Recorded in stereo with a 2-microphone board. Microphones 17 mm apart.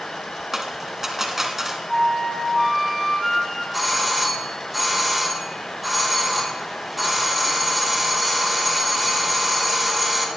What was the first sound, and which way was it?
A dropped coin, 25° right (ahead or behind).